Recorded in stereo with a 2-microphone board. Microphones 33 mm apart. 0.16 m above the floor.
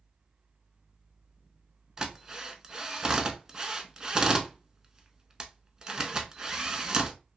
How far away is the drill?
About 0.7 m.